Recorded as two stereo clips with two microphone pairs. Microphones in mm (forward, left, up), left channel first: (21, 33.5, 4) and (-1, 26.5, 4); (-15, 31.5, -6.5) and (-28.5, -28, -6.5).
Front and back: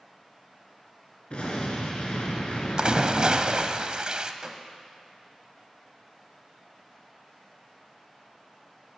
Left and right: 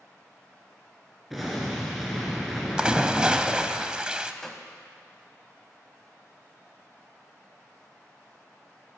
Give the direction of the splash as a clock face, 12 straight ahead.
6 o'clock.